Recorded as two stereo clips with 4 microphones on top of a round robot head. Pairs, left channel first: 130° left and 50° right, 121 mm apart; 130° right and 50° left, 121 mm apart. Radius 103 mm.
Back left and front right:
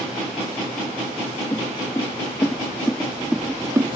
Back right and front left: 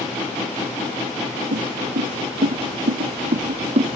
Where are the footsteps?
55° left; by 4.0 s 5° left.